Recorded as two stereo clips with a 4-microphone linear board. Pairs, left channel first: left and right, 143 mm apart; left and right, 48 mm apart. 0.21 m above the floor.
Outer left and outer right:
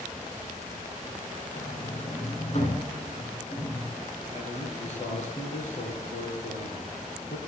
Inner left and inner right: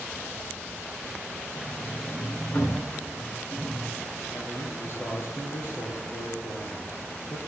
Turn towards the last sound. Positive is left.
turn(degrees=55)  # may be behind; listen again after turning